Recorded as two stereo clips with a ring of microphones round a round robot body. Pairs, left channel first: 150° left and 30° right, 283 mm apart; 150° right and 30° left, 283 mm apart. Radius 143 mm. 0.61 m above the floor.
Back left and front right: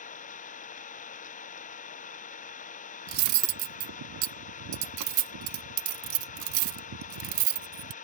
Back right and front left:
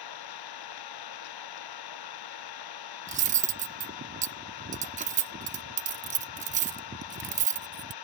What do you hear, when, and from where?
0.0 s an engine running: 145° right
3.1 s cutlery clinking: 30° right